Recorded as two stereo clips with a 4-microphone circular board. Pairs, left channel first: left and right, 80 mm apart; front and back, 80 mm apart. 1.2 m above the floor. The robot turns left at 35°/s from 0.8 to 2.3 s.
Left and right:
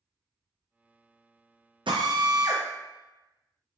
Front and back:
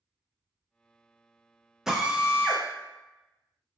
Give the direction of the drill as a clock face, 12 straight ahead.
3 o'clock.